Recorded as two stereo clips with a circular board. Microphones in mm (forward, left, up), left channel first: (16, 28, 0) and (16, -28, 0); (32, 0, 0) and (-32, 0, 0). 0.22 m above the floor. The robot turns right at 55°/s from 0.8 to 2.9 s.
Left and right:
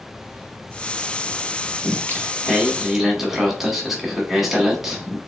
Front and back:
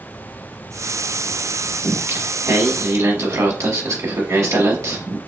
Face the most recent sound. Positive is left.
turn(degrees=-170)